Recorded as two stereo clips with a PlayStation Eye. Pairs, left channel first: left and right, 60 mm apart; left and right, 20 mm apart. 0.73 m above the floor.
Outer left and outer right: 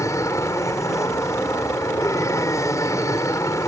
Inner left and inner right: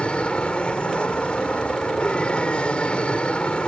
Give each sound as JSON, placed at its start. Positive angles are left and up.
{"t": 0.0, "sound": "an aircraft", "side_deg": 55}